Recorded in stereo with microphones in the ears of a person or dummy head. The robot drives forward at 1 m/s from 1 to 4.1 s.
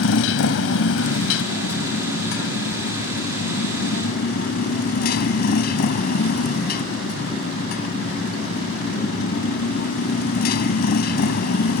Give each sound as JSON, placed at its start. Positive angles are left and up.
{"t": 0.0, "sound": "a motorcycle", "side_deg": 75}